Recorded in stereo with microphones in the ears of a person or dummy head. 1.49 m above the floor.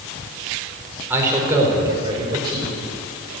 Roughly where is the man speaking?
Centre.